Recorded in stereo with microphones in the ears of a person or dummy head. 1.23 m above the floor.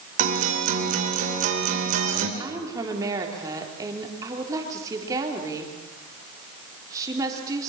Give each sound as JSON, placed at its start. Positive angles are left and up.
{"t": 0.2, "sound": "a guitar", "side_deg": -45, "distance_m": 3.0}
{"t": 2.4, "sound": "a woman speaking", "side_deg": -20, "distance_m": 4.0}